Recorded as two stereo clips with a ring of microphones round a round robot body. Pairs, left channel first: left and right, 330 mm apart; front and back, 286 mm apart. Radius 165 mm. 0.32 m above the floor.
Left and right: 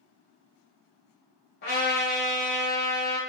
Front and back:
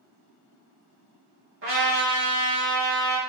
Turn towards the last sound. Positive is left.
turn(degrees=145)